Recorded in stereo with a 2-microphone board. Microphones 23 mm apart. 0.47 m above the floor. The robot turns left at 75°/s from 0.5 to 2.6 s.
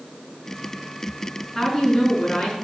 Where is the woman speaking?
175° left, 5.5 m; by 2.5 s 100° left, 5.5 m.